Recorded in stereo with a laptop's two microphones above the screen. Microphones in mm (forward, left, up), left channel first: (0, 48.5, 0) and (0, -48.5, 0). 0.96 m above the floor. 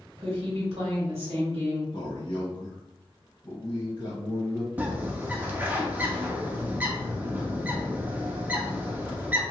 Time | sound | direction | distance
0.2 | a woman speaking | 75° right (ahead or behind) | 1.4 m
1.9 | a man speaking | 50° left (ahead or behind) | 1.1 m
4.8 | a bird | 15° right (ahead or behind) | 0.6 m